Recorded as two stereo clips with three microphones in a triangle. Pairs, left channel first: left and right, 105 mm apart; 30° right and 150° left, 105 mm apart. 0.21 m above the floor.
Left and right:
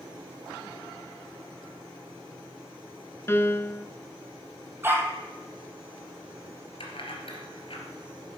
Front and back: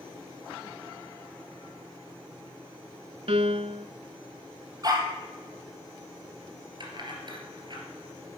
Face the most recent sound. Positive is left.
turn(degrees=115)